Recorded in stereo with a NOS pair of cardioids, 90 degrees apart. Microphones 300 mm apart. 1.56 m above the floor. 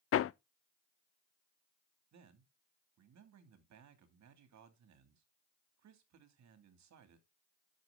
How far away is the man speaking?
About 2.5 m.